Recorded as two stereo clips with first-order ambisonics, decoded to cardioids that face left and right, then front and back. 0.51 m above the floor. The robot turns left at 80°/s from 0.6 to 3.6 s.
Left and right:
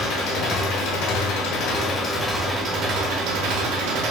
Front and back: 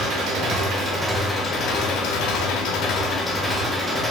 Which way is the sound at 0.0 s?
140° left.